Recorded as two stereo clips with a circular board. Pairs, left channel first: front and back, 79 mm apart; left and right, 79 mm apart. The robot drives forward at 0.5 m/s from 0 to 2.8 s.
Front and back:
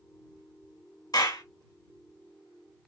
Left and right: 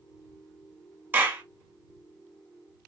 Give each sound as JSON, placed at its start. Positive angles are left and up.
{"t": 1.1, "sound": "a clap", "azimuth_deg": -25, "distance_m": 1.1}